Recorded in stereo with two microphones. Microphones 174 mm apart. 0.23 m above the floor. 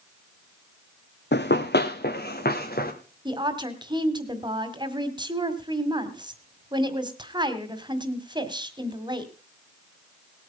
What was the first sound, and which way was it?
Running footsteps, 80° left.